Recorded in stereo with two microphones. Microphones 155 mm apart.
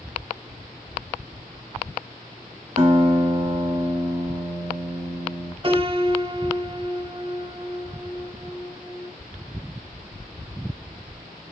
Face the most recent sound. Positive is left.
turn(degrees=-35)  # may be behind; listen again after turning